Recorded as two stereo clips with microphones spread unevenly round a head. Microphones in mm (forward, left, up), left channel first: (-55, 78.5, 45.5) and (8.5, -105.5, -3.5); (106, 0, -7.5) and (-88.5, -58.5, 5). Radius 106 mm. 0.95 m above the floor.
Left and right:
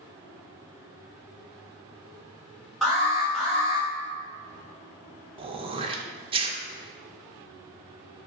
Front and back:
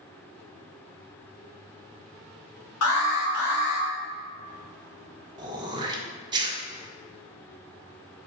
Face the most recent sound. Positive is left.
turn(degrees=-100)